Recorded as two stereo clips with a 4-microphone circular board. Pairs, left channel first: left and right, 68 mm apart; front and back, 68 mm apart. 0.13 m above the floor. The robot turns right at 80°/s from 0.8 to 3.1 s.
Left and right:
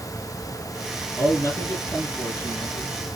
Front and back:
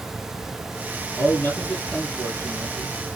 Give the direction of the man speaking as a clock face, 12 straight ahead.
11 o'clock.